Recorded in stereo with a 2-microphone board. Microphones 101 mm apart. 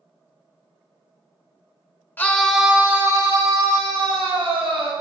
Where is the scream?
20° left (ahead or behind), 1.0 m; by 4.9 s 65° right (ahead or behind), 2.5 m.